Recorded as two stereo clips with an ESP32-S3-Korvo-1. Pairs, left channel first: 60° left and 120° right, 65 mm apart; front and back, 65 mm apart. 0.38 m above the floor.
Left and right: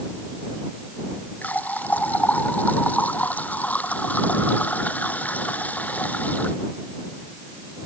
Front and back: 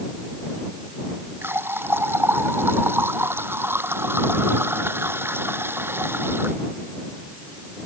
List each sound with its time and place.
1.4 s a running tap: 125° left